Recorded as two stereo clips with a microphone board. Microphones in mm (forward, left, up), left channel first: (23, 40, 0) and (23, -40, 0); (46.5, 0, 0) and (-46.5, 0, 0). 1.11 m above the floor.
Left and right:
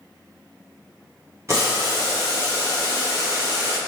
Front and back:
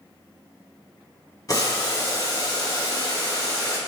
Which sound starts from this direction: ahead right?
Boiling, at 1.5 s.